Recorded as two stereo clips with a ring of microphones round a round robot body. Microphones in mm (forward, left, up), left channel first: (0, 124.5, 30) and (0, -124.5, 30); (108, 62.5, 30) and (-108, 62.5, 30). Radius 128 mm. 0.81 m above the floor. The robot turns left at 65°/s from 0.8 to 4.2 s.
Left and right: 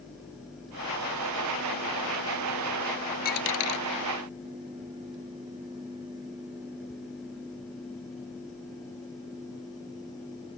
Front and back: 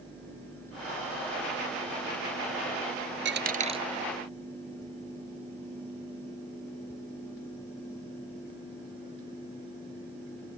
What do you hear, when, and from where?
3.2 s a dropped coin: 145° left; by 3.8 s 110° left